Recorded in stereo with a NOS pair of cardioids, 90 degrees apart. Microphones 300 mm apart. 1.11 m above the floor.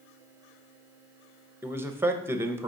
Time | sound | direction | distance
1.6 | a man speaking | 5° right | 0.6 m